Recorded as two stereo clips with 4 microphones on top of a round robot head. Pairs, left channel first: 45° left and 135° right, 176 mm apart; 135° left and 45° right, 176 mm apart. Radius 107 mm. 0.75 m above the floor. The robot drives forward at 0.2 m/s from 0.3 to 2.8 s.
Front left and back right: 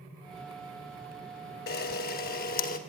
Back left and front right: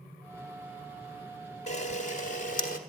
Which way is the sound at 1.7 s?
80° left.